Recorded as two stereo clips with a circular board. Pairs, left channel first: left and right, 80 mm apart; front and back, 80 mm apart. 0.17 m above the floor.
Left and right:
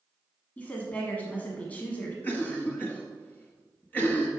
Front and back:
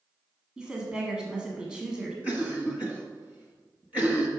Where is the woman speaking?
120° left, 1.3 m.